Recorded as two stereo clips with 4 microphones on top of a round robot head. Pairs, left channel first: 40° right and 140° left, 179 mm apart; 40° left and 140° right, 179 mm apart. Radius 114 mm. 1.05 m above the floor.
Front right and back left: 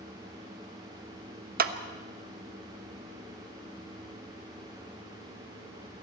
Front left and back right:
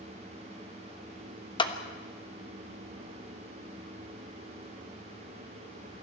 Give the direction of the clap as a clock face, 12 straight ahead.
9 o'clock.